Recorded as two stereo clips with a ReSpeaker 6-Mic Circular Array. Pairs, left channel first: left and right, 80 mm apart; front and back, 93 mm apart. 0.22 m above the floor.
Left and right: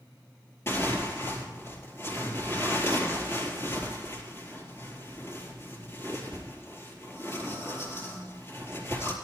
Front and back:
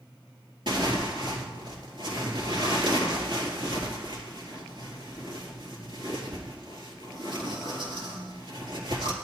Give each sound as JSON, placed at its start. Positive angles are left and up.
{"t": 0.7, "sound": "tearing paper", "azimuth_deg": 150, "distance_m": 4.0}